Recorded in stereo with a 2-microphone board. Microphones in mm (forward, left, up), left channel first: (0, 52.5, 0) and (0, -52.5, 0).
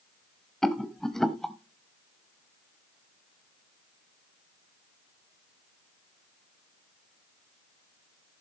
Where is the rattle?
5° left (ahead or behind), 0.9 m.